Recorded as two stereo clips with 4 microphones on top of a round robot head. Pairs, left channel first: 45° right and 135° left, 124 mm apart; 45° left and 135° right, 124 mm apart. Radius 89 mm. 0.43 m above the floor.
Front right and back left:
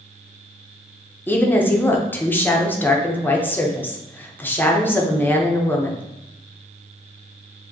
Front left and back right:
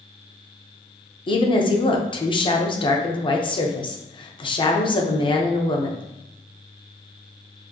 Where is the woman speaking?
25° left, 0.9 m.